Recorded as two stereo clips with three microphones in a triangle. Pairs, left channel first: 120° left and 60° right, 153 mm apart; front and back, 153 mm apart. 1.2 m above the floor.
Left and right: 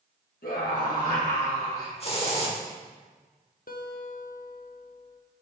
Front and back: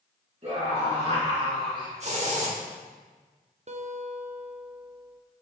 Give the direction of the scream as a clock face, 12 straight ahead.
7 o'clock.